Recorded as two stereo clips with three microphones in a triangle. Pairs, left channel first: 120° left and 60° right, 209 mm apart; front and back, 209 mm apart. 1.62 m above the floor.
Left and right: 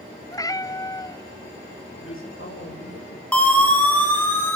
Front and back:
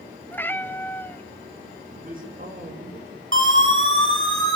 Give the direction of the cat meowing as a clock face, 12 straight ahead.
10 o'clock.